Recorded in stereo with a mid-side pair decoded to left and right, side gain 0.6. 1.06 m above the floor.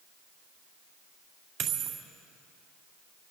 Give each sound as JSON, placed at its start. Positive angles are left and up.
{"t": 1.6, "sound": "a dropped coin", "azimuth_deg": -60, "distance_m": 2.0}